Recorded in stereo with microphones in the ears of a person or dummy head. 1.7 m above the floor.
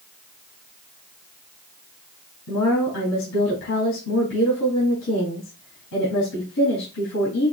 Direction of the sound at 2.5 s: 65° left (ahead or behind).